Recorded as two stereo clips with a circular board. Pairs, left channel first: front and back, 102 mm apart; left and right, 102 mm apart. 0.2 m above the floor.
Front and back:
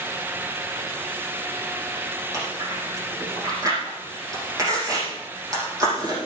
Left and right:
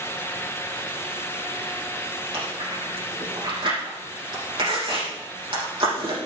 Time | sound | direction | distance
2.3 | chewing | 125° right | 6 m